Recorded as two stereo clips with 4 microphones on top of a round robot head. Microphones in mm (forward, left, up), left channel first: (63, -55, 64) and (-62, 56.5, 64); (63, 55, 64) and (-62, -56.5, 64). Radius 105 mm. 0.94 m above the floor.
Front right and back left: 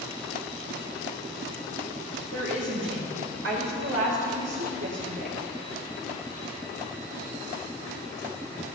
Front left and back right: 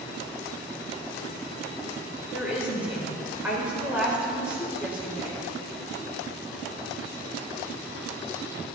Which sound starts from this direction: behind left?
A woman speaking, at 2.3 s.